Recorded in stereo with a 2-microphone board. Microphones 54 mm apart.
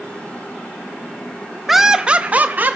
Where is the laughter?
5° right (ahead or behind), 0.5 m; by 2.8 s 35° right (ahead or behind), 0.7 m.